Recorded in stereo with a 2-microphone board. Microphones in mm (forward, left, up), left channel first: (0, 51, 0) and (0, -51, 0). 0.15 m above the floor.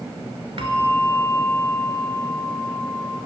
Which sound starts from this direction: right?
A bell, at 0.6 s.